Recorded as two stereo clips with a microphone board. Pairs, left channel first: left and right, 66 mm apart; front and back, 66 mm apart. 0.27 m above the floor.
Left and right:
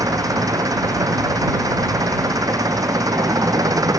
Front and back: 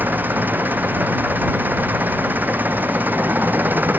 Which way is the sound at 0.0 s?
115° right.